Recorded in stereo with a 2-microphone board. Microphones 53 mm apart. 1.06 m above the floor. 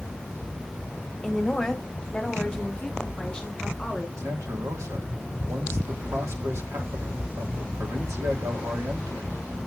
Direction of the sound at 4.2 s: 80° right.